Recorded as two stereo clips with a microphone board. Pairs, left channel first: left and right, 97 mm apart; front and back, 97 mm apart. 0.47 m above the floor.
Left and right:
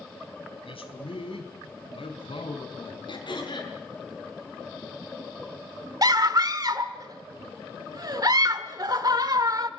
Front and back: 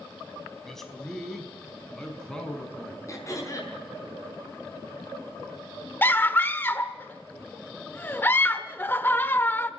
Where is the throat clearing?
55° left, 6 m.